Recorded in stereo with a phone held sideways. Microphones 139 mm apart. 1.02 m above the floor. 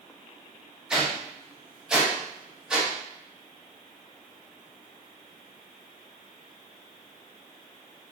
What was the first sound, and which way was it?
A whoosh, 5° right (ahead or behind).